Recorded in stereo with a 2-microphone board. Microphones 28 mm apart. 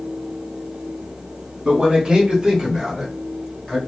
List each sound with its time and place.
1.6 s a man speaking: 35° right (ahead or behind), 1.0 m; by 3.8 s 20° left (ahead or behind), 1.5 m